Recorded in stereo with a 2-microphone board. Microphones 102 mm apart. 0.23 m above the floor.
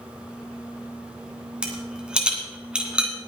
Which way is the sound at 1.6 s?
10° right (ahead or behind).